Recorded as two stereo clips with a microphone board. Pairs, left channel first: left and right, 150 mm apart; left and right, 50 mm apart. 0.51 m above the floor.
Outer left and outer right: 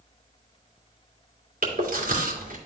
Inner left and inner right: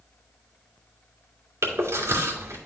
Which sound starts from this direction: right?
Chewing, at 1.6 s.